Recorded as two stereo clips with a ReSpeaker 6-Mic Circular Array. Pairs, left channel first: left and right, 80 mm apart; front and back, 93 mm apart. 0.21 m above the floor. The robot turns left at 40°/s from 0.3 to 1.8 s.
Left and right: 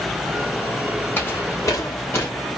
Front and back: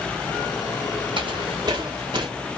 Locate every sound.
1.2 s footsteps: 150° left, 2.5 m; by 2.3 s 145° left, 2 m